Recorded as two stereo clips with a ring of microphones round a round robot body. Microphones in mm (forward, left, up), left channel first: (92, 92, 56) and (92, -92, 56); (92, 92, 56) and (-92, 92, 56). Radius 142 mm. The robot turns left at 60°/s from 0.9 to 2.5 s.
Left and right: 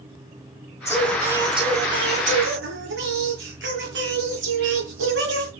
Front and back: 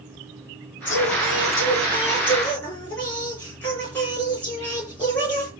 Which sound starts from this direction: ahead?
Singing, at 0.8 s.